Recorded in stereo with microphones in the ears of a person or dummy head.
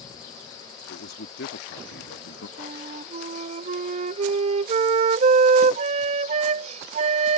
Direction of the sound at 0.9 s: 55° left (ahead or behind).